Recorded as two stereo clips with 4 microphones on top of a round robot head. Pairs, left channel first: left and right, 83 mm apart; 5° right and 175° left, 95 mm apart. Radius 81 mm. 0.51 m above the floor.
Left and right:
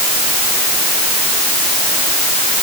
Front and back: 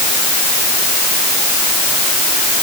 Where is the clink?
No clink in this recording.